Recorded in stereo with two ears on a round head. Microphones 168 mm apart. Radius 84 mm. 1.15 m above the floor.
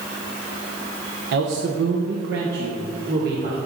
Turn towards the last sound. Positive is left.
turn(degrees=-50)  # may be behind; listen again after turning